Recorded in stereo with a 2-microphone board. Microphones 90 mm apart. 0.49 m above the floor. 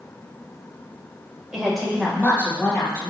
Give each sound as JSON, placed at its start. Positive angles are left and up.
{"t": 1.5, "sound": "a woman speaking", "side_deg": -10, "distance_m": 2.0}